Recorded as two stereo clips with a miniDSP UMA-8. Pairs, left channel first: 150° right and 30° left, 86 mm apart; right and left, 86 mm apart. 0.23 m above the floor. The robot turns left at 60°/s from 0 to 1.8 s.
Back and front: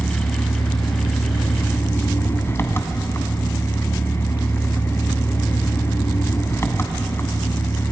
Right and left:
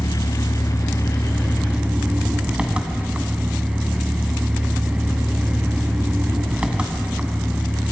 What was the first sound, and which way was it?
An engine running, 90° right.